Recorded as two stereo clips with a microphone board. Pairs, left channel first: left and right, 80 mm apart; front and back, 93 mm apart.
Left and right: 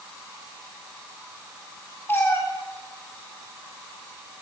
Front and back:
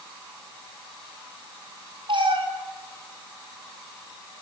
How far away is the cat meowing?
About 6.5 m.